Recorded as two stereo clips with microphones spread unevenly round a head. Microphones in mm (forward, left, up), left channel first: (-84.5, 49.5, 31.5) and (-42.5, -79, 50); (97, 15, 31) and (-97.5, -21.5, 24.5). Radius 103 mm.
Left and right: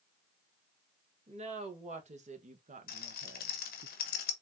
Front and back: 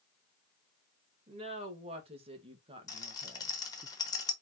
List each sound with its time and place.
1.3 s a woman speaking: 110° right, 2 m; by 3.9 s 90° right, 0.5 m
2.9 s a rattle: 85° left, 1.1 m